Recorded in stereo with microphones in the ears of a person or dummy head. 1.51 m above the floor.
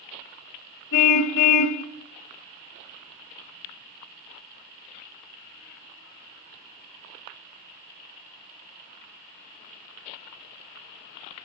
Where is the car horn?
55° left (ahead or behind), 3 m.